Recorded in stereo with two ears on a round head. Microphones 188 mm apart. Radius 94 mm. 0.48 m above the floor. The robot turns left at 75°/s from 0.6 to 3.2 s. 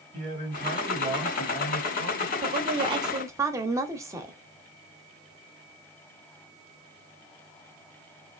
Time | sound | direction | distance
0.1 | a man speaking | 130° right | 1.8 m
2.4 | a woman speaking | 90° right | 0.8 m